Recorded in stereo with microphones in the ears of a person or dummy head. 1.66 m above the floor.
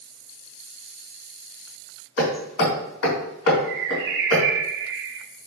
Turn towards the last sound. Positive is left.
turn(degrees=-70)  # may be behind; listen again after turning